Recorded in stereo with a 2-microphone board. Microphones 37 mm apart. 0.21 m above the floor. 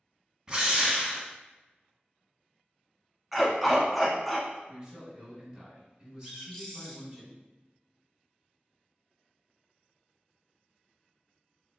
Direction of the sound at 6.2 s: 10° left (ahead or behind).